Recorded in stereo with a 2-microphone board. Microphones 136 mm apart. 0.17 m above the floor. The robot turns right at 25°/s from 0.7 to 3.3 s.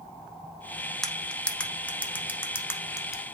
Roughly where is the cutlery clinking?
Centre.